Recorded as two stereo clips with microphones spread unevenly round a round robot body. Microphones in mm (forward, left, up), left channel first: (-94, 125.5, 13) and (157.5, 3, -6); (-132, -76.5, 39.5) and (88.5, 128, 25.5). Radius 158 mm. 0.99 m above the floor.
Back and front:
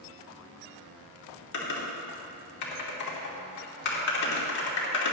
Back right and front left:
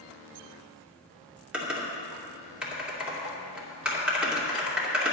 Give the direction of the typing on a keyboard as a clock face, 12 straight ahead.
8 o'clock.